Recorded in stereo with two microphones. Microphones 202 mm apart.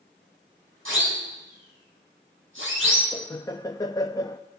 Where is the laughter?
20° left (ahead or behind), 0.5 m.